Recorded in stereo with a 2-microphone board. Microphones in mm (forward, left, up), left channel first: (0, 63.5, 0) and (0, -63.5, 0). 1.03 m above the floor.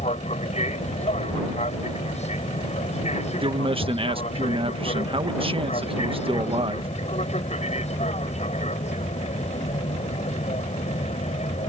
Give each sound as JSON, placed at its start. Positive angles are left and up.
{"t": 0.0, "sound": "an aircraft", "side_deg": 60}
{"t": 3.4, "sound": "a man speaking", "side_deg": -45}